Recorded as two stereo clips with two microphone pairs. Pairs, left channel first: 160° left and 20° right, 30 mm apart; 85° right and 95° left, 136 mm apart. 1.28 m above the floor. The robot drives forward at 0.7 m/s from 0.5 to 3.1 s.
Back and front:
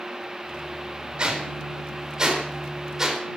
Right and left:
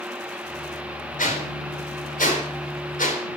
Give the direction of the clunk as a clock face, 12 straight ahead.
No clunk in this recording.